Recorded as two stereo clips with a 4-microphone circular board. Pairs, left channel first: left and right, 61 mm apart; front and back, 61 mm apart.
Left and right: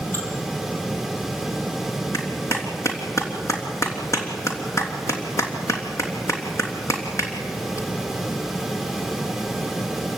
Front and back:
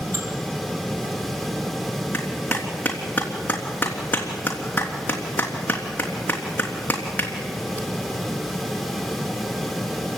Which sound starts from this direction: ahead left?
A clap, at 2.1 s.